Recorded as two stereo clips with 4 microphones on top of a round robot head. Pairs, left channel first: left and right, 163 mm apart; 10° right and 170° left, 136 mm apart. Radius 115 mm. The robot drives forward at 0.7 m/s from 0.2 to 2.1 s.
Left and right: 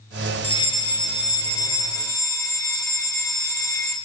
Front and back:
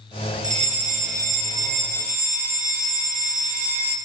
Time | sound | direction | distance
0.4 | a fire alarm | 145° left | 2.5 m